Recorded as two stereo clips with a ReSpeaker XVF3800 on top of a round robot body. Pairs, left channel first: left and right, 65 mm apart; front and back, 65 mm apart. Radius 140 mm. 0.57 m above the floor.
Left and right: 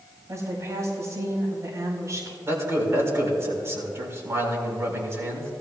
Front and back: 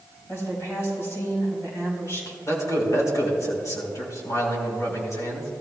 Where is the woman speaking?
50° right, 5 m.